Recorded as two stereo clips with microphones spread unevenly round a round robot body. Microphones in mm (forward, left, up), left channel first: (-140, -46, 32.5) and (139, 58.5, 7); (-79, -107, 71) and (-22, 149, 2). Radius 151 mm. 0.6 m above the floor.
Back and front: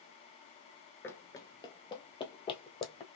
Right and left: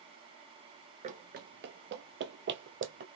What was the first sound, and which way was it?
Running footsteps, 140° left.